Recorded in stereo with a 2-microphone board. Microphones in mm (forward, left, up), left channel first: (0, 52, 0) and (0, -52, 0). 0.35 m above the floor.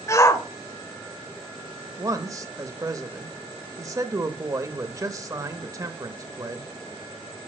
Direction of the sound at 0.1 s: 30° left (ahead or behind).